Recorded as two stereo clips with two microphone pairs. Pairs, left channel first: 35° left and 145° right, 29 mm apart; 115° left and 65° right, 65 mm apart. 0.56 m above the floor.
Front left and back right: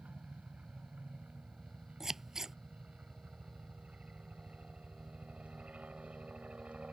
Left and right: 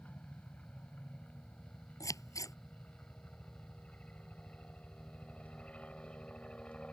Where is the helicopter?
Straight behind; by 6.9 s 175° right.